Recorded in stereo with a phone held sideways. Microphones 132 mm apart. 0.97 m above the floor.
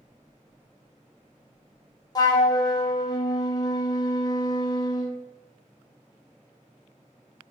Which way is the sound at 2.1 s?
30° left (ahead or behind).